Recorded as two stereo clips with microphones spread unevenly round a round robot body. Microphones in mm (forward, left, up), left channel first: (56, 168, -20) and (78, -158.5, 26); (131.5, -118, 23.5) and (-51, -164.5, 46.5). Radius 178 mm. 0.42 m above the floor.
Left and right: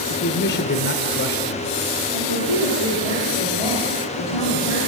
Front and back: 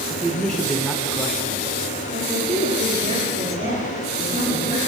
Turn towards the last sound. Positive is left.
turn(degrees=120)